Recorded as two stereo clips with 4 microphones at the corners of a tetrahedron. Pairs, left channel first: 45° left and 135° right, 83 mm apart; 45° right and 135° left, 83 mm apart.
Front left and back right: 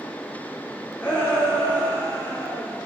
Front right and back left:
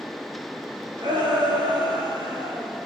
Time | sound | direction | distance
1.0 | a shout | 115° left | 8 m